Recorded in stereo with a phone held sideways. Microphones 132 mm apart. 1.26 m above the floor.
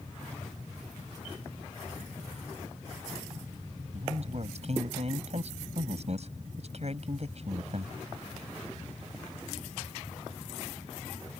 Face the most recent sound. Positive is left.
turn(degrees=-55)  # may be behind; listen again after turning